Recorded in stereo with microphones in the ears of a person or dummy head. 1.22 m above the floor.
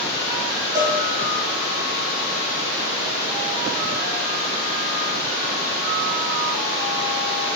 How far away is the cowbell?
About 2.0 m.